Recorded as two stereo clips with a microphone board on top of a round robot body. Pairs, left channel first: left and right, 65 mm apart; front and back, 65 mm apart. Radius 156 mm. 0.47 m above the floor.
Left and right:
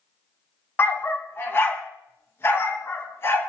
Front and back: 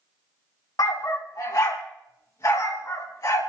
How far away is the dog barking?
About 1.5 m.